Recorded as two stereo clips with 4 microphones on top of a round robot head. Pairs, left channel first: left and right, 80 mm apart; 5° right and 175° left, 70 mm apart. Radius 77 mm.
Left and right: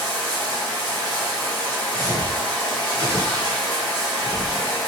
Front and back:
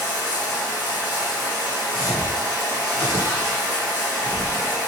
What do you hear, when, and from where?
0.0 s running water: 130° right, 2.5 m
1.9 s footsteps: 110° right, 2 m; by 4.7 s 170° right, 2 m